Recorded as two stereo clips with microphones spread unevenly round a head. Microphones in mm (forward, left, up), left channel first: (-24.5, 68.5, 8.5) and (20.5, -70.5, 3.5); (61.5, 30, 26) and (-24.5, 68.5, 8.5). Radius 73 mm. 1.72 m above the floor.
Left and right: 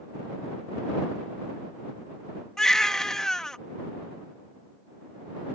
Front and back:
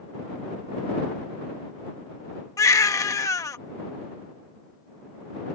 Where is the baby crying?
25° left.